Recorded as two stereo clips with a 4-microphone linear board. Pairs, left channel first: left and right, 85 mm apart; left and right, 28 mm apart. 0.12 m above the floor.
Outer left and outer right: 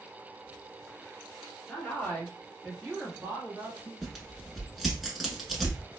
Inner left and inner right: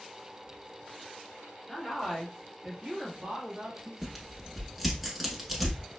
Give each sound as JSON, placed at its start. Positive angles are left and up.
{"t": 1.7, "sound": "a woman speaking", "side_deg": 20, "distance_m": 1.3}
{"t": 4.0, "sound": "tearing paper", "side_deg": 0, "distance_m": 0.9}